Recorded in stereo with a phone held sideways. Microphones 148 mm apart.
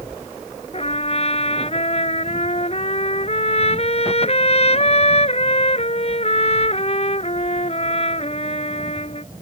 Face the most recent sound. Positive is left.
turn(degrees=45)  # may be behind; listen again after turning